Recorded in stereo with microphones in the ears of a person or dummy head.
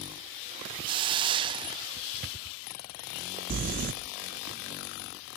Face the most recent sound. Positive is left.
turn(degrees=-45)  # may be behind; listen again after turning